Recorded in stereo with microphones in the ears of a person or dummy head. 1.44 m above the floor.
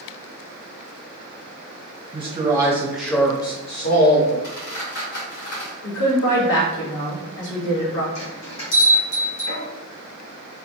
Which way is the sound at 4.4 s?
65° left (ahead or behind).